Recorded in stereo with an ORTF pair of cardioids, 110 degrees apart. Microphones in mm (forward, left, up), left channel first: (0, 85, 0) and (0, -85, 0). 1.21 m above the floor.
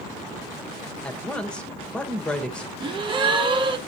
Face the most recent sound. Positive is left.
turn(degrees=-30)